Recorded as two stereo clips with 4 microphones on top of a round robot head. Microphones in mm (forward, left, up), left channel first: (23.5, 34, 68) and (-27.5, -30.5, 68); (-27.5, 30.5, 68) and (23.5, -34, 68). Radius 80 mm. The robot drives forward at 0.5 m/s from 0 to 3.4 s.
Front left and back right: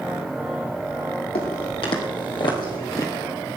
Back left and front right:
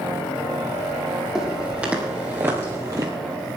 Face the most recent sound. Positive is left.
turn(degrees=-5)